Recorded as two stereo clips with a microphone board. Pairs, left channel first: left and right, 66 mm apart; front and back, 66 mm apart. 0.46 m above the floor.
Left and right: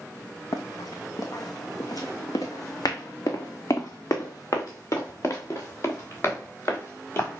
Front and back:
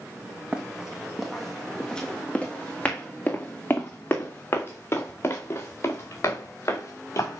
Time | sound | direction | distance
0.5 | running footsteps | 105° left | 1.6 m